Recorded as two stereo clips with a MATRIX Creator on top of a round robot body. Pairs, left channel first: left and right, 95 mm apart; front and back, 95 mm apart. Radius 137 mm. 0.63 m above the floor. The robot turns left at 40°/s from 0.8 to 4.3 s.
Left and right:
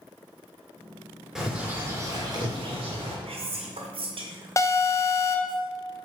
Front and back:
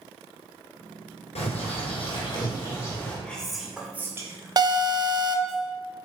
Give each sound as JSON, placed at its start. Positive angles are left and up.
{"t": 1.4, "sound": "a bird", "azimuth_deg": -5, "distance_m": 2.5}
{"t": 3.2, "sound": "whispering", "azimuth_deg": -80, "distance_m": 1.9}
{"t": 4.6, "sound": "an alarm", "azimuth_deg": 145, "distance_m": 1.1}